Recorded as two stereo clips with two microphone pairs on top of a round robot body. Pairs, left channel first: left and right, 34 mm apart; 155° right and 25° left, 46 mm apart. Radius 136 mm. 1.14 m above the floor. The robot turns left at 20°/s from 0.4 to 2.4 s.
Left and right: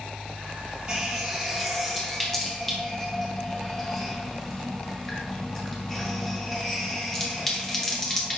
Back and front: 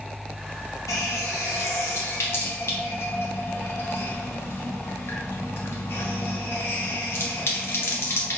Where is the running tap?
160° right, 0.6 m; by 8.4 s 170° left, 0.6 m.